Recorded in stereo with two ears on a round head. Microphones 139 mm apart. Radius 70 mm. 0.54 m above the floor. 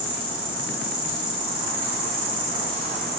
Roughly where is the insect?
Right.